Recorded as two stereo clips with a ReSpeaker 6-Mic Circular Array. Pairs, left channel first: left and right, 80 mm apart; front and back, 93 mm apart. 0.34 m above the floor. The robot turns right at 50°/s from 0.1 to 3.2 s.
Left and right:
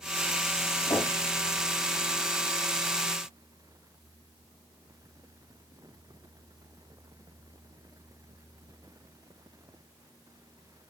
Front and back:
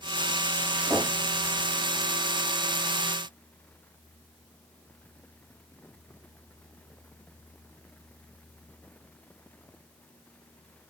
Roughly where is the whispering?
No whispering in this recording.